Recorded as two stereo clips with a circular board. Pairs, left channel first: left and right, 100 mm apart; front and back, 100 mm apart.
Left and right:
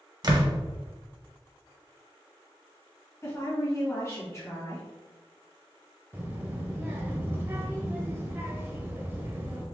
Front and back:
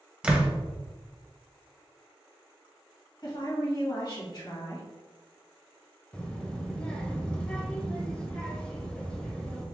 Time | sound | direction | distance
0.2 | a door slam | 105° right | 0.8 m
3.2 | a woman speaking | 35° left | 1.9 m
6.1 | a child speaking | 60° right | 0.7 m